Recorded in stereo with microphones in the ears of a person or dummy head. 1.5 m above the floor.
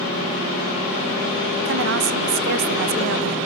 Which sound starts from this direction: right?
A woman speaking, at 1.6 s.